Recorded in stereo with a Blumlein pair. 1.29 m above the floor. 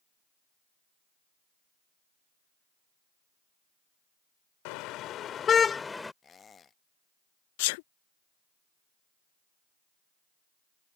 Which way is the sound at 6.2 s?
20° left.